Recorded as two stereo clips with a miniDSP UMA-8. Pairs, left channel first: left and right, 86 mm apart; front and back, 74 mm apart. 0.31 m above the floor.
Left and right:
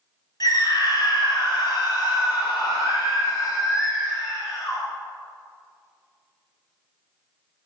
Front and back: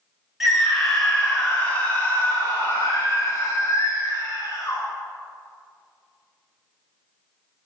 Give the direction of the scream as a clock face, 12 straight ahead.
9 o'clock.